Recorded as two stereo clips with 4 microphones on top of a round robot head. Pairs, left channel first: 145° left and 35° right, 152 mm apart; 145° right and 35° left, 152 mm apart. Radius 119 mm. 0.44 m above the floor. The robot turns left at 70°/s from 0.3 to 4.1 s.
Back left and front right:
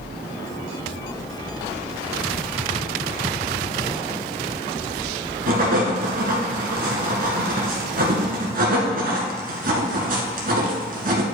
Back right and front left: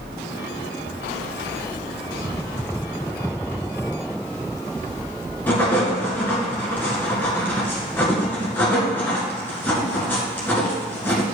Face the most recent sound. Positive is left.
turn(degrees=-65)